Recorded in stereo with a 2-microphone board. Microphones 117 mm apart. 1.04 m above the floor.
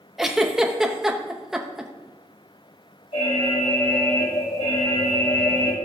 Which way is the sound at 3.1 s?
65° left (ahead or behind).